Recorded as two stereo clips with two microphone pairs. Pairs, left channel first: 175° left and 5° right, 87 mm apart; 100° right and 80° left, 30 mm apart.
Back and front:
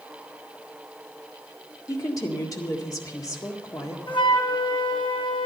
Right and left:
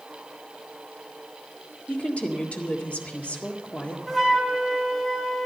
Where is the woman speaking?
140° right, 1.7 m.